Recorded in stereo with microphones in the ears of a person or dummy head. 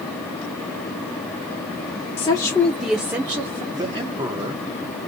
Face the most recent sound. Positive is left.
turn(degrees=-25)  # may be behind; listen again after turning